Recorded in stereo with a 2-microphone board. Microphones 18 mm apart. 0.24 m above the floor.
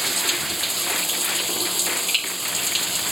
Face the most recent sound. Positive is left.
turn(degrees=-10)  # may be behind; listen again after turning